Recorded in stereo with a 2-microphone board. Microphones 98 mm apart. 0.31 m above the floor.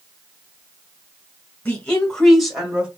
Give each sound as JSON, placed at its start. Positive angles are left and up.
{"t": 1.6, "sound": "a woman speaking", "side_deg": 15, "distance_m": 1.7}